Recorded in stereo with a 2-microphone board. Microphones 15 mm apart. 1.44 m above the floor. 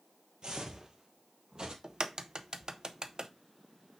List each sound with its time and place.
0.4 s footsteps: 45° right (ahead or behind), 2.0 m; by 1.7 s 50° right (ahead or behind), 2.5 m
1.8 s a crack: 50° right (ahead or behind), 0.9 m